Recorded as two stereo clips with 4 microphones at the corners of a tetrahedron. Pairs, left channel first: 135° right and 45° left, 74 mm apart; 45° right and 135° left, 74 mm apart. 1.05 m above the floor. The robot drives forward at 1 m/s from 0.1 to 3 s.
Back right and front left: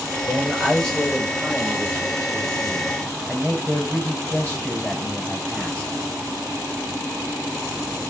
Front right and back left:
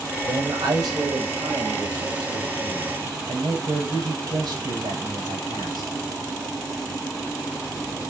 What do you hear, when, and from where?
0.2 s a man speaking: 135° left, 5.5 m; by 5.9 s 150° left, 7.5 m